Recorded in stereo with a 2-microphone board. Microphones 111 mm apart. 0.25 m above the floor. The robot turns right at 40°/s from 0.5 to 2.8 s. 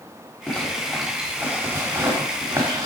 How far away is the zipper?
About 1.5 m.